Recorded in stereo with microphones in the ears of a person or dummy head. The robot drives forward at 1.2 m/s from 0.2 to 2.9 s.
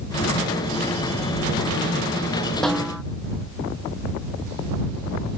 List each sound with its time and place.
2.6 s a snare drum: centre (ahead or behind)